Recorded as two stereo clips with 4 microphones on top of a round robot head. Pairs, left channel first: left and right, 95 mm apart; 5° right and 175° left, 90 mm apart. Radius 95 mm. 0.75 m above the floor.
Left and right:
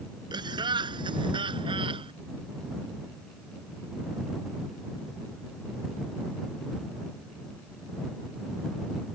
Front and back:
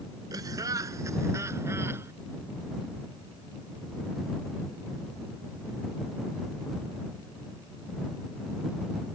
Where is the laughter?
125° right; by 2.1 s 115° right.